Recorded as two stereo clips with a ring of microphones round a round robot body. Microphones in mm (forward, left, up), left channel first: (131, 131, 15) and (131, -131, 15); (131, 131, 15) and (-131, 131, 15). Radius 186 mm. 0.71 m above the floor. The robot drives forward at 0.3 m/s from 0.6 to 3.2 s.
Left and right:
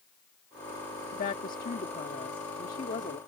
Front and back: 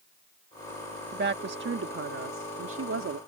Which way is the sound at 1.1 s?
140° left.